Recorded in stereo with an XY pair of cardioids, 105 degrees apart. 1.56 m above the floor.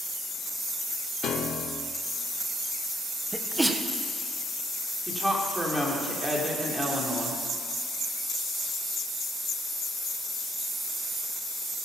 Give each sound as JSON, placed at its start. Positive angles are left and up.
{"t": 1.2, "sound": "a piano", "azimuth_deg": 65, "distance_m": 1.0}
{"t": 3.3, "sound": "a sneeze", "azimuth_deg": -10, "distance_m": 1.4}
{"t": 5.1, "sound": "a woman speaking", "azimuth_deg": -10, "distance_m": 3.5}